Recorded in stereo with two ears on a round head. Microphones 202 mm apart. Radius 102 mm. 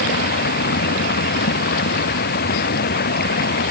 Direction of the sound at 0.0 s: 45° left (ahead or behind).